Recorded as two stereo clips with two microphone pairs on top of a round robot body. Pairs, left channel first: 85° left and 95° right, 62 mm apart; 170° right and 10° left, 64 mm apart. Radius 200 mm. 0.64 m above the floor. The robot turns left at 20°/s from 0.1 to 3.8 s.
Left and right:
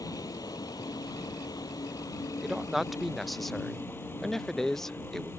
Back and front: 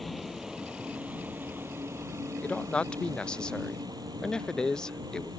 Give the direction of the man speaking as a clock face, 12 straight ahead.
6 o'clock.